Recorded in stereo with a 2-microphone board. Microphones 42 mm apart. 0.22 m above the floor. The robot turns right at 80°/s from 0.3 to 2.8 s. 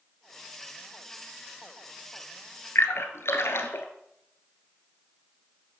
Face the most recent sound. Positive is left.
turn(degrees=70)  # may be behind; listen again after turning